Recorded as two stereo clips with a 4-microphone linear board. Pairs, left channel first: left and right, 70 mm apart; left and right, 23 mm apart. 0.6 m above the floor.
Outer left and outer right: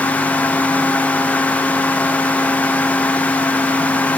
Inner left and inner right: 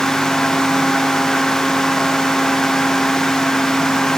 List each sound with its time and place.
Only background noise.